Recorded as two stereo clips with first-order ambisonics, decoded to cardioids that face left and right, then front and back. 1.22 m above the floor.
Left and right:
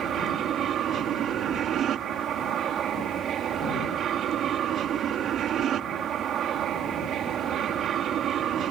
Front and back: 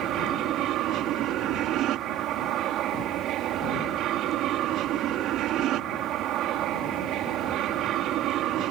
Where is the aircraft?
140° right.